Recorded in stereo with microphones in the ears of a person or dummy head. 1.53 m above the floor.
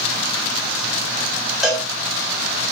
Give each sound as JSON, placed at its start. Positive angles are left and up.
{"t": 1.6, "sound": "a cowbell", "side_deg": 0, "distance_m": 6.0}